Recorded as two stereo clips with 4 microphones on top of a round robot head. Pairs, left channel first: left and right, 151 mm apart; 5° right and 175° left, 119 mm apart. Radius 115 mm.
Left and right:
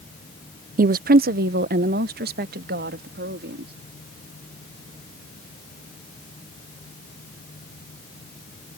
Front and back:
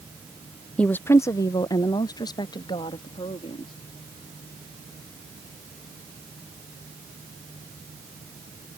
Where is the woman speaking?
90° right; by 3.7 s 70° right.